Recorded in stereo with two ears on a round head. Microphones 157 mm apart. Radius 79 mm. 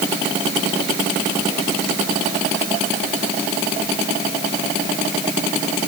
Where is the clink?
I don't hear a clink.